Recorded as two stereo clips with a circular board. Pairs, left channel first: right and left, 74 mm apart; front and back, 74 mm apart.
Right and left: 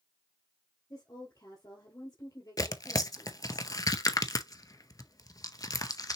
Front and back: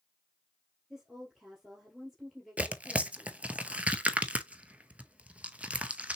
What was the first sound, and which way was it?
A woman speaking, 95° right.